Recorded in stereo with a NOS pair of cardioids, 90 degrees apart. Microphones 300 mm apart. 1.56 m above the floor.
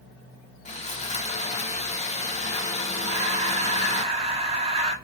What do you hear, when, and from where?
0.7 s sawing: 25° left, 0.9 m
3.0 s breathing: 20° right, 1.2 m